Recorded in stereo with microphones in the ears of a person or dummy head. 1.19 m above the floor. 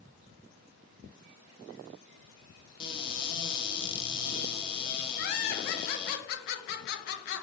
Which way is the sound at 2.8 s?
25° left (ahead or behind).